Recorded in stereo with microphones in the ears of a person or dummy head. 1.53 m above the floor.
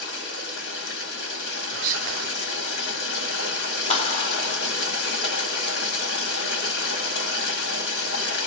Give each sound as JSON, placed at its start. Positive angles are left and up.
{"t": 0.0, "sound": "running water", "side_deg": 65, "distance_m": 1.3}
{"t": 1.7, "sound": "whispering", "side_deg": -65, "distance_m": 0.6}
{"t": 3.9, "sound": "a clap", "side_deg": 35, "distance_m": 0.7}